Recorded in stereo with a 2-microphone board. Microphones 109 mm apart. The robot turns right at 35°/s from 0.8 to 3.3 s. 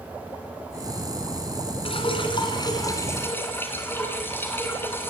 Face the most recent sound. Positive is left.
turn(degrees=155)